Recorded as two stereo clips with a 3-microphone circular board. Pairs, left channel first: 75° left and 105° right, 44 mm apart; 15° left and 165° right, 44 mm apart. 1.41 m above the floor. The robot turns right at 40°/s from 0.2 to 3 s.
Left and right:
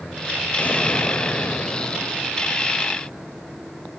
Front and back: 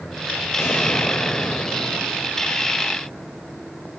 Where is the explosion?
25° left, 2.5 m; by 2.2 s 90° left, 2.5 m.